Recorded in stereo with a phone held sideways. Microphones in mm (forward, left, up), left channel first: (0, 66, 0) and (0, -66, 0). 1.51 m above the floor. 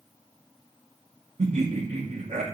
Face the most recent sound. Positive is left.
turn(degrees=-65)  # may be behind; listen again after turning